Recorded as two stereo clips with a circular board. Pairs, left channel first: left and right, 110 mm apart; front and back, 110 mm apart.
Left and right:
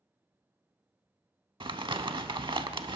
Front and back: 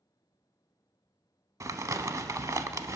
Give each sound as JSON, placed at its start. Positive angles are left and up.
{"t": 1.6, "sound": "crumpling", "azimuth_deg": -125, "distance_m": 0.6}